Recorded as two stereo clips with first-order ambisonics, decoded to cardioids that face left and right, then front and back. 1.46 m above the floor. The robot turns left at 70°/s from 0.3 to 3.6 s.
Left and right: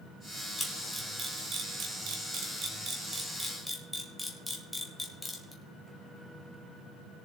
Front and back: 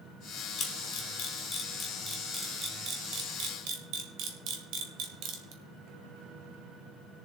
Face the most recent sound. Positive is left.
turn(degrees=170)